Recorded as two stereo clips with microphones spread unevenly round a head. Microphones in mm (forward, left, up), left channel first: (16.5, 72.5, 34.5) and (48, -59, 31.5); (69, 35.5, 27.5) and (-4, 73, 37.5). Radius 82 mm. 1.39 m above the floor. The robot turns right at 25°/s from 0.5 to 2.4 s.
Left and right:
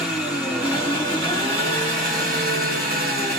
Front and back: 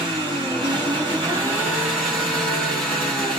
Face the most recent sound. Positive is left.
turn(degrees=-110)